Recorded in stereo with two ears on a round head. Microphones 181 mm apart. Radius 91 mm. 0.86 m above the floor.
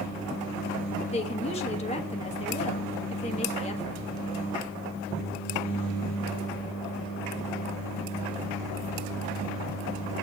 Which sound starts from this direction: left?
A woman speaking, at 1.1 s.